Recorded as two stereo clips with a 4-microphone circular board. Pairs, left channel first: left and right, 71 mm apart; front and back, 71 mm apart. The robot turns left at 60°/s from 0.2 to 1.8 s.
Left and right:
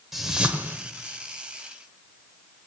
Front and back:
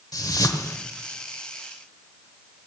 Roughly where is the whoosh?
Ahead.